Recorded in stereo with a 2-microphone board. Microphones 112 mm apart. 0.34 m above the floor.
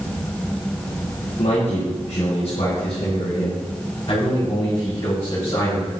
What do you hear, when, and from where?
1.4 s a man speaking: 65° left (ahead or behind), 6.5 m; by 5.9 s 35° left (ahead or behind), 11.5 m